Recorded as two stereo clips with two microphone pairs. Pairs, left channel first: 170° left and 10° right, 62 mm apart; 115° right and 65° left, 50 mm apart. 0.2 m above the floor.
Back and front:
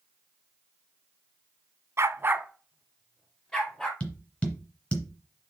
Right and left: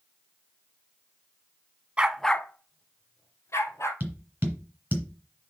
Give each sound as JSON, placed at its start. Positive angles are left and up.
{"t": 2.0, "sound": "a dog barking", "azimuth_deg": 5, "distance_m": 0.6}
{"t": 4.0, "sound": "tapping", "azimuth_deg": 110, "distance_m": 2.0}